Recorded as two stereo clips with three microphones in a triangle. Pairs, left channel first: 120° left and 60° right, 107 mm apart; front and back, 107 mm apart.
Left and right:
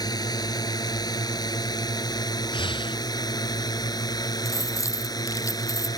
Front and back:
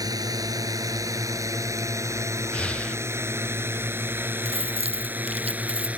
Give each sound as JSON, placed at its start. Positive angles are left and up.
{"t": 0.0, "sound": "a drone", "azimuth_deg": 145}
{"t": 2.5, "sound": "breathing", "azimuth_deg": 80}
{"t": 4.5, "sound": "keys jangling", "azimuth_deg": 180}